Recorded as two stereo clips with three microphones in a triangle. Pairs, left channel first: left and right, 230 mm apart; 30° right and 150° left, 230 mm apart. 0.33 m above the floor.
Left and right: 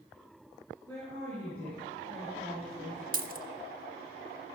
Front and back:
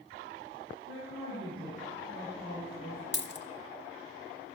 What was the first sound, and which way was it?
A woman speaking, 10° left.